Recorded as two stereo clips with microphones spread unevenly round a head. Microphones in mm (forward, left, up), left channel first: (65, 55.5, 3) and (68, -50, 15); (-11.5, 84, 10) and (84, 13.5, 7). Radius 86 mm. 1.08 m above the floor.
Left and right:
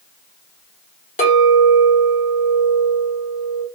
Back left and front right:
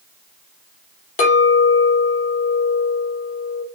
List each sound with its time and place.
1.2 s a clink: 125° left, 1.0 m